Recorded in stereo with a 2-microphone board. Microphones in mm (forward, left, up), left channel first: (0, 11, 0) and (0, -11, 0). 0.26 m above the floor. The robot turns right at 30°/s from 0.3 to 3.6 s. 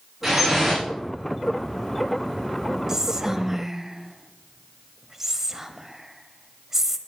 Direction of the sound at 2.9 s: 20° right (ahead or behind).